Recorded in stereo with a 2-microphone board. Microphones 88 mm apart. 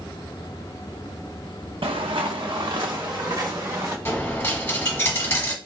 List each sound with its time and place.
1.8 s footsteps: 75° right (ahead or behind), 0.8 m; by 4.0 s 40° right (ahead or behind), 2 m
4.0 s a dropped coin: 25° left (ahead or behind), 1.0 m